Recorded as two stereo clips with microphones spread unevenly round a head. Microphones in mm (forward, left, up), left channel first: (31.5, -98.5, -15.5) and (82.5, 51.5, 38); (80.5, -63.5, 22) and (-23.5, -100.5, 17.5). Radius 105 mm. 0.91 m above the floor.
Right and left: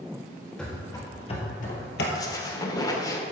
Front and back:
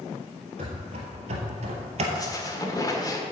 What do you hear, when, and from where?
0.6 s running footsteps: 155° left, 1.4 m; by 2.0 s 155° right, 1.5 m
2.1 s a squeak: 40° right, 1.7 m